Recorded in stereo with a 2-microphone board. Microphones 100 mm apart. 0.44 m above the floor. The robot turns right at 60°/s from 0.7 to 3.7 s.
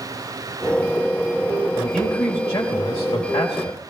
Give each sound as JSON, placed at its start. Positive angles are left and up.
{"t": 1.8, "sound": "a man speaking", "azimuth_deg": -5, "distance_m": 1.6}